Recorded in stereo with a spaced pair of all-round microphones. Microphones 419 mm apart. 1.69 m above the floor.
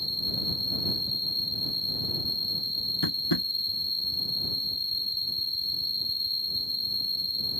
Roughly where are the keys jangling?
I don't hear keys jangling.